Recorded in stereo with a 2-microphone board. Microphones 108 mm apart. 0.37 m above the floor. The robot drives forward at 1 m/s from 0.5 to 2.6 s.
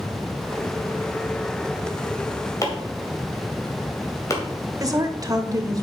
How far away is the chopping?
About 2 m.